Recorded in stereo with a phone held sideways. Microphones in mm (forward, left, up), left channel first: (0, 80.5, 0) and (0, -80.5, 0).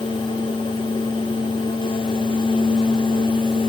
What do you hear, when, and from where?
0.0 s a fan: 30° left (ahead or behind), 1.5 m